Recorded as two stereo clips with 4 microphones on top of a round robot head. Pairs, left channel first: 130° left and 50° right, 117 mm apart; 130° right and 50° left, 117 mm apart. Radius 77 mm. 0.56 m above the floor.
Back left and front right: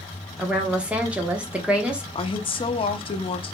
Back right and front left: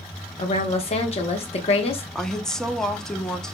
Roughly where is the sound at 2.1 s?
Behind left.